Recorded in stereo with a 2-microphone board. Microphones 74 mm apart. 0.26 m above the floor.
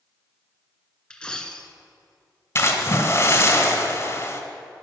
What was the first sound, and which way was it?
A dropped coin, 15° left (ahead or behind).